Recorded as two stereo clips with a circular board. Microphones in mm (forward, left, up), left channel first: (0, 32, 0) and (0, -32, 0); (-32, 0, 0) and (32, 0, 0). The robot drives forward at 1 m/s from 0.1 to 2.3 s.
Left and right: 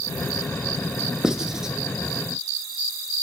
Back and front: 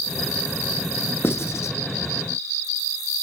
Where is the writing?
165° right, 1.2 m; by 1.8 s 170° right, 1.6 m.